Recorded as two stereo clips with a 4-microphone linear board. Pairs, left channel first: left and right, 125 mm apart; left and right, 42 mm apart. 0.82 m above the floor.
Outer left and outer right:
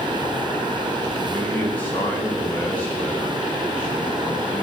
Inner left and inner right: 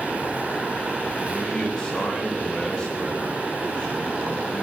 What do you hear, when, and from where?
1.3 s a man speaking: 10° left (ahead or behind), 6 m